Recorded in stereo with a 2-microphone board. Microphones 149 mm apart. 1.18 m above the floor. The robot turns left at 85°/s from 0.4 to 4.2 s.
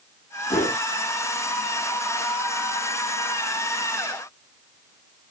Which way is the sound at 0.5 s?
45° left (ahead or behind).